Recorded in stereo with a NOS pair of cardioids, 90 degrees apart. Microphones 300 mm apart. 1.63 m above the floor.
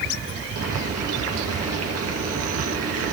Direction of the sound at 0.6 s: 50° right.